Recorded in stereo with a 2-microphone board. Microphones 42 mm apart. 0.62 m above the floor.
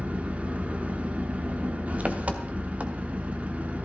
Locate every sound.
0.0 s an engine running: 35° right (ahead or behind), 0.8 m